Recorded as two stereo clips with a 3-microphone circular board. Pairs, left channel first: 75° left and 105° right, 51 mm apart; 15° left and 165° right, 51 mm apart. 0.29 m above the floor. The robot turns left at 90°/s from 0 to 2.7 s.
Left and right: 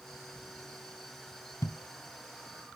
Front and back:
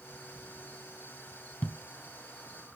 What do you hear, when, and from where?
1.6 s a thud: 70° left, 1.0 m; by 2.8 s 25° right, 1.0 m